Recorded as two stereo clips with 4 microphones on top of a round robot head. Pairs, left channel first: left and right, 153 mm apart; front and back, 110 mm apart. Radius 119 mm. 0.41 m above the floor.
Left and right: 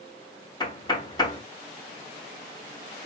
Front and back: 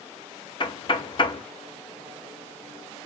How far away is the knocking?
About 1.0 m.